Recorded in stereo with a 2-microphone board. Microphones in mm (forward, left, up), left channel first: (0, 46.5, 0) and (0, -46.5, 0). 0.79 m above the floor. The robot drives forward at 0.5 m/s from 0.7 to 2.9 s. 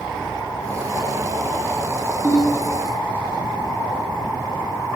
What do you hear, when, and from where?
2.2 s a ringtone: 20° left (ahead or behind), 0.5 m; by 2.6 s 15° left (ahead or behind), 0.7 m